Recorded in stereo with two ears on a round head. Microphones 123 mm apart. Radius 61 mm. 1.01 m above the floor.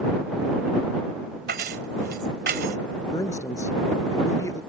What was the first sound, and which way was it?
Keys jangling, 80° right.